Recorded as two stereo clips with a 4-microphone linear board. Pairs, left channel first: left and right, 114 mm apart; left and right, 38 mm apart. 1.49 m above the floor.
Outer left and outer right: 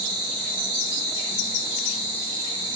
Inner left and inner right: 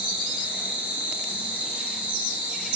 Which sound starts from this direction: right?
An insect, at 0.0 s.